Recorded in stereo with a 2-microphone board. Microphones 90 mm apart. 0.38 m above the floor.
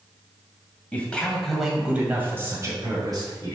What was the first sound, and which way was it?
A man speaking, 15° left (ahead or behind).